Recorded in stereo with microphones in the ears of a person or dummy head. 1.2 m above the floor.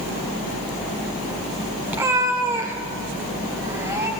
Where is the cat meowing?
15° right (ahead or behind), 1.1 m; by 4.1 s 20° right (ahead or behind), 2.5 m.